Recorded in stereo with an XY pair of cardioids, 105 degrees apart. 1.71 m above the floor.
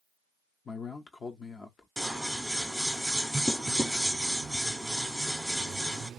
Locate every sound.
0.7 s a man speaking: 40° left, 0.8 m
2.0 s scissors: straight ahead, 1.0 m